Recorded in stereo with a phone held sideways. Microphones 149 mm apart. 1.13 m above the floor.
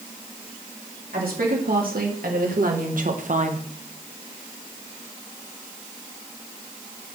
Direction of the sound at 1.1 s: 80° right.